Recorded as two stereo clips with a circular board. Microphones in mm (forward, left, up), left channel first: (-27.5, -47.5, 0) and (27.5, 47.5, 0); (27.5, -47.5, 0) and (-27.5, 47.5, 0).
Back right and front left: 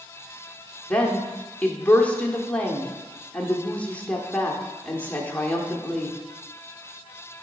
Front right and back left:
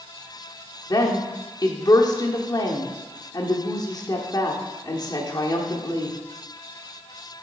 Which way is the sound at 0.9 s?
50° right.